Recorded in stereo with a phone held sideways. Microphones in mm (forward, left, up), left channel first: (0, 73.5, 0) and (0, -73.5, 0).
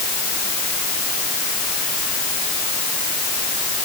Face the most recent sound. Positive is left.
No sound to turn to.